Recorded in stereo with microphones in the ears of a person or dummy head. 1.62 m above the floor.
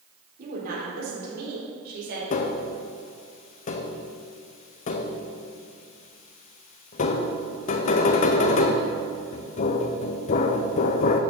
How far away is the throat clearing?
I don't hear throat clearing.